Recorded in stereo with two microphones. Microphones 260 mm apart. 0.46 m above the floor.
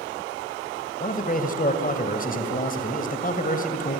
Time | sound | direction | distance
1.0 | a man speaking | 30° left (ahead or behind) | 2.5 m